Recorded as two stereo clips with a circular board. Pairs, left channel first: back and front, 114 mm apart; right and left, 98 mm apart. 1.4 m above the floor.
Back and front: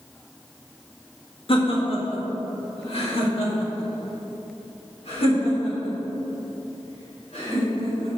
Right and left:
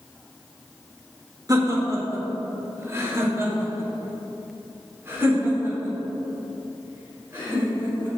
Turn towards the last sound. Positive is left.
turn(degrees=160)